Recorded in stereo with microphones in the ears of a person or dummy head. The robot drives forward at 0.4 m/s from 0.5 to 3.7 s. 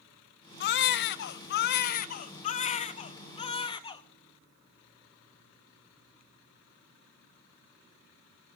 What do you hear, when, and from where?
0.6 s a baby crying: 55° left (ahead or behind), 0.7 m; by 4.0 s 25° left (ahead or behind), 1.3 m